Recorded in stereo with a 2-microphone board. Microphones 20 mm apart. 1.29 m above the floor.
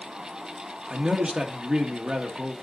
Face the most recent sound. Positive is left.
turn(degrees=-40)  # may be behind; listen again after turning